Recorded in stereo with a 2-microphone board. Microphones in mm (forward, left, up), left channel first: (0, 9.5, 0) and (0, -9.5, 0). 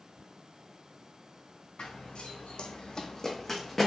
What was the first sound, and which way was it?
Running footsteps, 75° left (ahead or behind).